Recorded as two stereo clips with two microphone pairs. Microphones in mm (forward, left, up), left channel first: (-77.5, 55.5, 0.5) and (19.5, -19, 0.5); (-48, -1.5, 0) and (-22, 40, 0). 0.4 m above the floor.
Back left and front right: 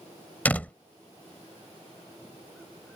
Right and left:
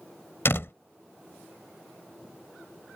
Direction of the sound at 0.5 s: 145° right.